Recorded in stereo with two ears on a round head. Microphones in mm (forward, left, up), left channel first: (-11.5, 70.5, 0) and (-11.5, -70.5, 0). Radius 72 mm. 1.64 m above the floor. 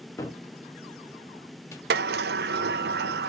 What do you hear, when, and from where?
0.2 s a cupboard door: 15° left (ahead or behind), 1.1 m
1.9 s a sliding door: 65° right (ahead or behind), 0.5 m